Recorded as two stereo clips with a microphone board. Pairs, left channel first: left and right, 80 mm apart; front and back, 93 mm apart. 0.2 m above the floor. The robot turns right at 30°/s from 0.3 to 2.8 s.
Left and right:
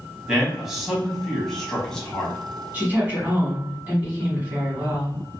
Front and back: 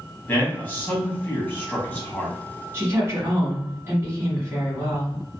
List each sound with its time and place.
0.3 s a man speaking: 25° right, 1.1 m; by 2.4 s 40° left, 1.1 m
2.7 s a woman speaking: 145° right, 1.5 m; by 5.2 s 140° right, 1.5 m